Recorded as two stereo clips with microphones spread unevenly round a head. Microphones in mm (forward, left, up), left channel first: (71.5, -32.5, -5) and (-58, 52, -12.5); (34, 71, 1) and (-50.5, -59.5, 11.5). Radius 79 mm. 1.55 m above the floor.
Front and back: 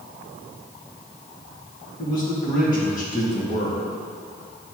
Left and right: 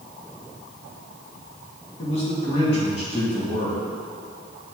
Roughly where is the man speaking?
Ahead.